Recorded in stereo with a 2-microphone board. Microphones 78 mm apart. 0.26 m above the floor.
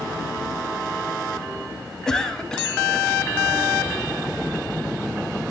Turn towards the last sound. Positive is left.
turn(degrees=5)  # may be behind; listen again after turning